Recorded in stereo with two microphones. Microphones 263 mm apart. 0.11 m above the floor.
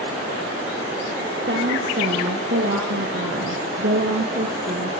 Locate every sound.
1.5 s a woman speaking: 45° right (ahead or behind), 3.5 m; by 4.9 s 30° right (ahead or behind), 3 m